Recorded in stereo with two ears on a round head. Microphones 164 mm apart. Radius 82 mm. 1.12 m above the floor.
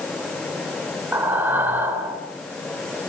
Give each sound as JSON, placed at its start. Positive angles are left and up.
{"t": 1.1, "sound": "breathing", "side_deg": -10, "distance_m": 3.0}